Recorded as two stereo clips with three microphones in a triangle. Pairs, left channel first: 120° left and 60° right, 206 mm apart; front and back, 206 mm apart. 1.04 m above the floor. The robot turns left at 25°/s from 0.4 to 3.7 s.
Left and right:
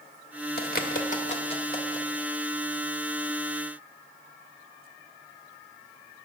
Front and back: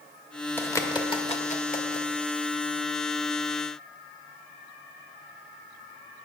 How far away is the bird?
About 1.2 m.